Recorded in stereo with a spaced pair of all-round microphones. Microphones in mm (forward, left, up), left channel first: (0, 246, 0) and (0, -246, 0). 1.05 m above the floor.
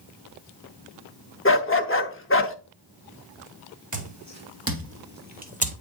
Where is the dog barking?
25° left (ahead or behind), 0.7 m.